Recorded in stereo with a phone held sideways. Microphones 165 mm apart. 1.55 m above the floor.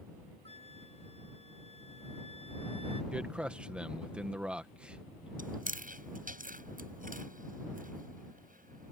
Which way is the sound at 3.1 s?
5° right (ahead or behind).